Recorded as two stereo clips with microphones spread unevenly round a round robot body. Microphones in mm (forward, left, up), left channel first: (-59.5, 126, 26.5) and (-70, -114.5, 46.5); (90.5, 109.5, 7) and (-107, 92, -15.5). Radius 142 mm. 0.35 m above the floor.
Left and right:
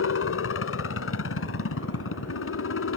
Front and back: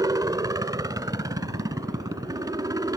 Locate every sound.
0.0 s a helicopter: 115° left